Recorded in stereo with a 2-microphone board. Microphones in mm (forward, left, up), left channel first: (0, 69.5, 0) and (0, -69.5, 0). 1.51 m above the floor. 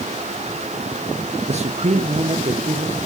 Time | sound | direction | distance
1.5 | a man speaking | 50° right (ahead or behind) | 0.8 m